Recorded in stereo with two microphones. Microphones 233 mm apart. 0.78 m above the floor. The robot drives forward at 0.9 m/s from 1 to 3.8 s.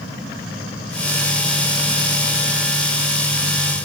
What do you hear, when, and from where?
Only background noise.